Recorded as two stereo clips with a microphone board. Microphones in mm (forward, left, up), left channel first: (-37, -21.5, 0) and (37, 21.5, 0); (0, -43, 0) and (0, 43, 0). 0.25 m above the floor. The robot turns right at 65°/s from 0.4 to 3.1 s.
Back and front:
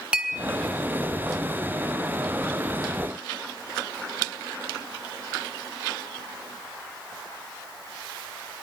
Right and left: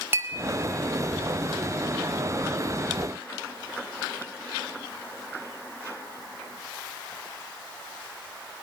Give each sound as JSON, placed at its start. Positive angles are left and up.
{"t": 0.1, "sound": "a clink", "azimuth_deg": 90, "distance_m": 0.8}